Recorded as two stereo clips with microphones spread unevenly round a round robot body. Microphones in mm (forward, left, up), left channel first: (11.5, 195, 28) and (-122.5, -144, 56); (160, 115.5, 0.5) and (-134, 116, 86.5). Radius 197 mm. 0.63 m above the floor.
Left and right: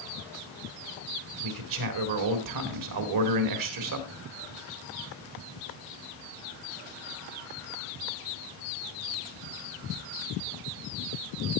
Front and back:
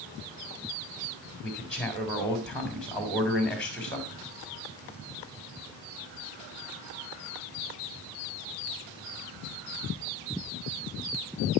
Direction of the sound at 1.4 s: 80° right.